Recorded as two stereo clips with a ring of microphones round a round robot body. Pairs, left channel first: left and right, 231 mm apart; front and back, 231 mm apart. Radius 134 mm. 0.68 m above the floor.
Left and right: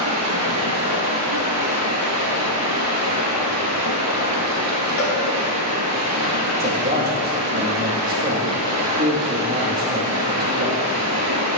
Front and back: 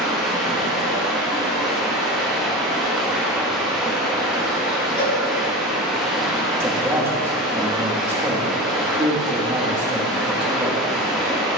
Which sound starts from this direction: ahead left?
A cowbell, at 5.0 s.